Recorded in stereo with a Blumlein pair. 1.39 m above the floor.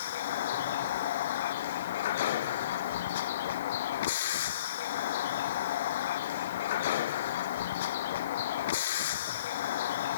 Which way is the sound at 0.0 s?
60° left.